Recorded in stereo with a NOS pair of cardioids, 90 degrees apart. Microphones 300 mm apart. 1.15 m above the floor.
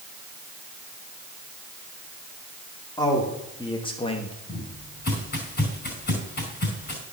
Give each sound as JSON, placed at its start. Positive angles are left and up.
{"t": 3.0, "sound": "a man speaking", "azimuth_deg": 10, "distance_m": 3.0}
{"t": 4.5, "sound": "footsteps", "azimuth_deg": 30, "distance_m": 5.0}